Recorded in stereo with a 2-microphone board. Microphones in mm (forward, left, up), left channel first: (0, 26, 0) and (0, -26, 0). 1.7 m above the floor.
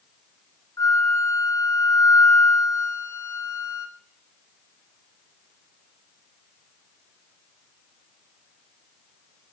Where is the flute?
80° left, 0.5 m.